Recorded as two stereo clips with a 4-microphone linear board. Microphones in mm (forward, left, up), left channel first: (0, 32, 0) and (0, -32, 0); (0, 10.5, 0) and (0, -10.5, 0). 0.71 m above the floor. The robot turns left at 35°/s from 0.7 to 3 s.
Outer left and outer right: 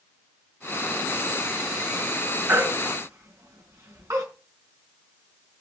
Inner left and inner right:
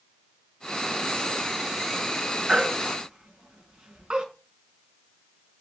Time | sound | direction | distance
2.5 | a baby crying | 35° right (ahead or behind) | 3.5 m